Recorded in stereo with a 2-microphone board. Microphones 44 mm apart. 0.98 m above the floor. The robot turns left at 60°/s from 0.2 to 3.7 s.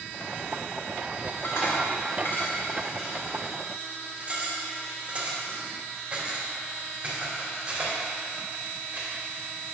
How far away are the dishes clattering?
About 2.5 m.